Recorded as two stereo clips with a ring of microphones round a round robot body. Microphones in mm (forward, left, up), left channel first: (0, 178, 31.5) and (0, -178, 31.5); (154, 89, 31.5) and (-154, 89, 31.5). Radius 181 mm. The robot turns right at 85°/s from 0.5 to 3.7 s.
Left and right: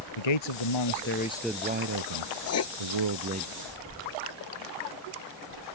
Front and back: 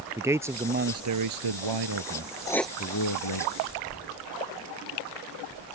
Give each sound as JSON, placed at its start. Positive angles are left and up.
{"t": 0.2, "sound": "a man speaking", "azimuth_deg": 100}
{"t": 2.5, "sound": "writing", "azimuth_deg": 75}